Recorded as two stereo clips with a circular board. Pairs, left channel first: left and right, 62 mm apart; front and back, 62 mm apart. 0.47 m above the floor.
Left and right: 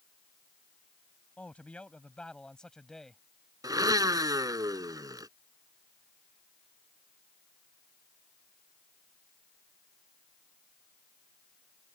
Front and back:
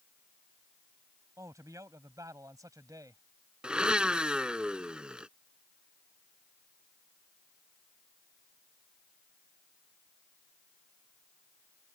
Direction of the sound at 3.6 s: 105° right.